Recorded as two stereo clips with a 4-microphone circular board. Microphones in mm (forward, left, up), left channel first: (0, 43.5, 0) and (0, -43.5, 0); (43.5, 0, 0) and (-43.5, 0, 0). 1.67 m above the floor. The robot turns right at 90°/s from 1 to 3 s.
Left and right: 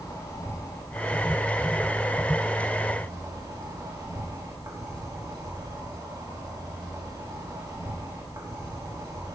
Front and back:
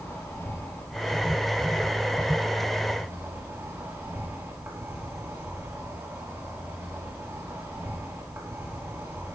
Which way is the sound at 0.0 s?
50° left.